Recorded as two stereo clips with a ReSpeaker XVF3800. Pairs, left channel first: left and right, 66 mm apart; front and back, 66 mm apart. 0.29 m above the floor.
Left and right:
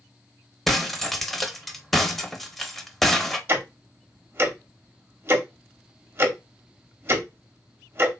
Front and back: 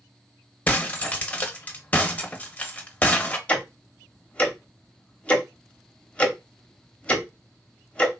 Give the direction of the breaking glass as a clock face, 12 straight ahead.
12 o'clock.